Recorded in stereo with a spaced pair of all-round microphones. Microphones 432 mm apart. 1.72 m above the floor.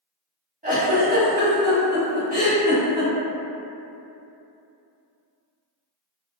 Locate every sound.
0.6 s a giggle: 15° right (ahead or behind), 1.0 m